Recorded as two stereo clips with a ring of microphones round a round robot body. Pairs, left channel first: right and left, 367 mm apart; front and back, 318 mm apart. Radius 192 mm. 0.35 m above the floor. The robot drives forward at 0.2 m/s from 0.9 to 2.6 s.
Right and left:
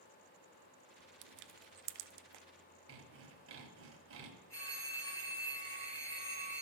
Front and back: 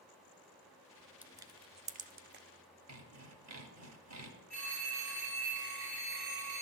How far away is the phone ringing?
About 3 m.